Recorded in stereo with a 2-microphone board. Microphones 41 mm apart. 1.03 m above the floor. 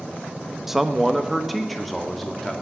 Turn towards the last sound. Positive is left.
turn(degrees=5)  # may be behind; listen again after turning